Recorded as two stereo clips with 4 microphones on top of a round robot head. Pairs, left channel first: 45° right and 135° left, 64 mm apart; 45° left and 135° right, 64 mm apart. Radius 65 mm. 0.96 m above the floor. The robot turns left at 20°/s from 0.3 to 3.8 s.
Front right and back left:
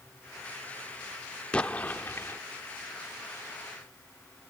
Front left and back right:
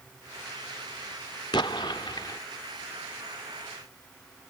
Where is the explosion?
30° left; by 2.4 s 10° left.